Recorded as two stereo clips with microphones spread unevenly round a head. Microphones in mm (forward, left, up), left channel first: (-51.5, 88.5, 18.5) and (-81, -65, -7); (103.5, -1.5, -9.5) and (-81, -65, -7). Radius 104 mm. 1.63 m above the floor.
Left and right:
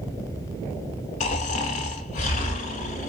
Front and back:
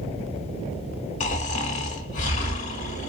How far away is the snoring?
About 1.6 m.